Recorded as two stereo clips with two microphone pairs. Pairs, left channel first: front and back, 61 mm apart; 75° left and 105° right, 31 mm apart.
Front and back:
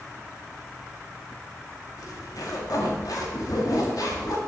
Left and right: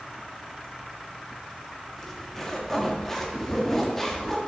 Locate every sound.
2.0 s a zipper: 5° right, 1.7 m